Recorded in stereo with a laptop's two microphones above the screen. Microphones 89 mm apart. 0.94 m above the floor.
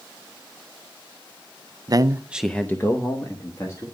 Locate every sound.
1.9 s a man speaking: 45° right (ahead or behind), 0.7 m; by 3.9 s 45° left (ahead or behind), 1.9 m